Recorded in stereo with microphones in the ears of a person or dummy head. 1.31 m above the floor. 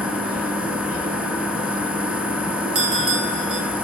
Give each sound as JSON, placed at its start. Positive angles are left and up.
{"t": 0.0, "sound": "a machine running", "side_deg": -5, "distance_m": 0.9}
{"t": 2.8, "sound": "a bell", "side_deg": -50, "distance_m": 1.5}